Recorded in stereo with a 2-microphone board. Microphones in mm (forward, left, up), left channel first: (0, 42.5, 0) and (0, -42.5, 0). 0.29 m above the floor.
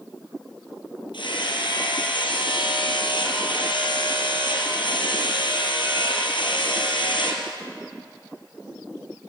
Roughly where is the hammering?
Left.